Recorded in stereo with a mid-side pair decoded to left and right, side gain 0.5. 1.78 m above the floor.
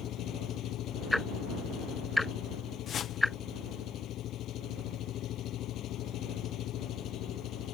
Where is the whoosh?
55° left.